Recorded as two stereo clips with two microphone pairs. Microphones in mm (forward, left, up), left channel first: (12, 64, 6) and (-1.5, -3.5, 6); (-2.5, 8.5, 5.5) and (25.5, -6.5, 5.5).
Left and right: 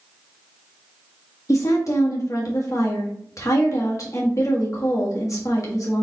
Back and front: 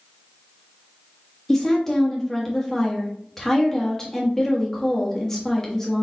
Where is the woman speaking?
85° left, 1.5 m.